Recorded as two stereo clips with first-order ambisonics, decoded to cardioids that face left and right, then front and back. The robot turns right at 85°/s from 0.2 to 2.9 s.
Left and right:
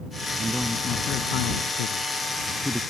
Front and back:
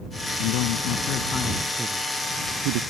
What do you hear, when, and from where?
0.4 s a man speaking: 20° right; by 2.8 s 175° right